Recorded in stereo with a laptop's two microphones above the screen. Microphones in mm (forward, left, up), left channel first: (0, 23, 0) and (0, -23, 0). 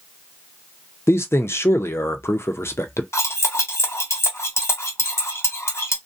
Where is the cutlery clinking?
70° left (ahead or behind), 0.9 m.